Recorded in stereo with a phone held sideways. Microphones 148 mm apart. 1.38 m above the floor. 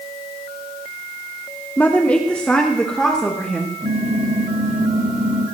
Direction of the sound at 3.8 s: 65° right (ahead or behind).